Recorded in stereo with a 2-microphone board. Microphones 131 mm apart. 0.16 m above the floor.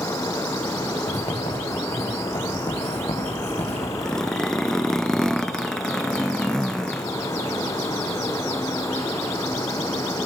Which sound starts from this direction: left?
Writing, at 1.1 s.